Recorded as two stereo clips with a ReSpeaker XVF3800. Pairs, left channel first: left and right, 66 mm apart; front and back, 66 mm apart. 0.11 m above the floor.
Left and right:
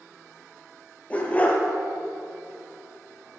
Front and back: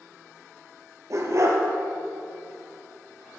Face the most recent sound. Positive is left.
turn(degrees=150)